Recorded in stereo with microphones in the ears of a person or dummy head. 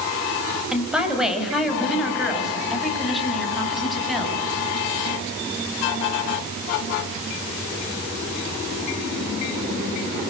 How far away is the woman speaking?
About 5.5 m.